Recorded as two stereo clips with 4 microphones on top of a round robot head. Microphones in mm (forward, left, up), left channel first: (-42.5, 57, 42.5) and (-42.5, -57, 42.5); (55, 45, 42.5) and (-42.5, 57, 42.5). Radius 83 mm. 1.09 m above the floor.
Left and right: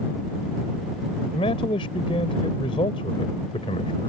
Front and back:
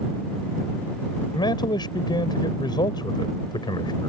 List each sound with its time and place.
1.3 s a man speaking: 35° left